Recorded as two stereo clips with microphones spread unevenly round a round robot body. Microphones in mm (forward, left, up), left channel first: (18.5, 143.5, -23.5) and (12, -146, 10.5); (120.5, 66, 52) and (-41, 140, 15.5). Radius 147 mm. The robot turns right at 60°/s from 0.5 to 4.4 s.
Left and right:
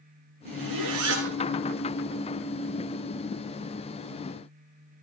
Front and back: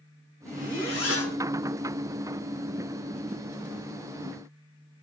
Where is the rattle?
I don't hear a rattle.